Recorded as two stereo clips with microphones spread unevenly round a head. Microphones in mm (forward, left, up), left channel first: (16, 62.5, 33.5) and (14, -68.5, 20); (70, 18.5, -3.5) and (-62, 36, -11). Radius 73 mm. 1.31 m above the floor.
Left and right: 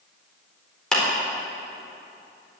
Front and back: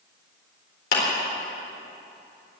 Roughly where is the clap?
Ahead.